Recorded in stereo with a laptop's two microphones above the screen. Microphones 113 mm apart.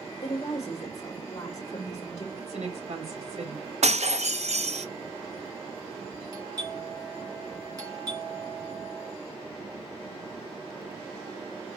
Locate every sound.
0.2 s a woman speaking: 30° left (ahead or behind), 1.1 m
2.4 s a woman speaking: 75° right (ahead or behind), 3 m
3.8 s breaking glass: 80° right, 0.5 m
6.3 s a doorbell: 35° right (ahead or behind), 2.5 m